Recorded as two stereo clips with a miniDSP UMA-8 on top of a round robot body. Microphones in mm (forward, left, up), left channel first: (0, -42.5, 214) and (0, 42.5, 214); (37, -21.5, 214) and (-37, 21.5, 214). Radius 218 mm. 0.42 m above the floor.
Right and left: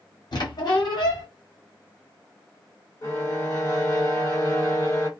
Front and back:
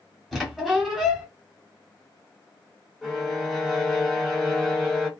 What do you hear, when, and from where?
0.3 s a squeak: 120° right, 1.2 m
3.0 s a violin: 120° right, 1.7 m